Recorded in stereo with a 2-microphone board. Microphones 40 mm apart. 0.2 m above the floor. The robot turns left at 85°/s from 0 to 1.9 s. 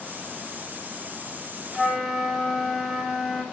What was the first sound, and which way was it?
A flute, 10° left (ahead or behind).